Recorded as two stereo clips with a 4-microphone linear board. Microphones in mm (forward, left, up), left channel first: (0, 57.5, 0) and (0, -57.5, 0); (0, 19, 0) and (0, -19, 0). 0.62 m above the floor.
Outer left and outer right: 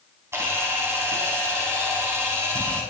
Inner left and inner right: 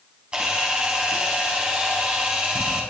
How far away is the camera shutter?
About 5 m.